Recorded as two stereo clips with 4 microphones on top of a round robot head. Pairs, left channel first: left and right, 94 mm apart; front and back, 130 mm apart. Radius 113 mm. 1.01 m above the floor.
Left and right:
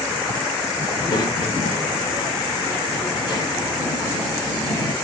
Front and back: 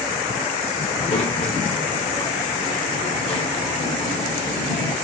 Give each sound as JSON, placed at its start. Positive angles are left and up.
{"t": 0.9, "sound": "a child speaking", "azimuth_deg": 45, "distance_m": 1.6}